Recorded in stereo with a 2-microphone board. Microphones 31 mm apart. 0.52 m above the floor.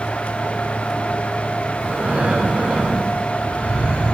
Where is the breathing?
70° right (ahead or behind), 6.5 m.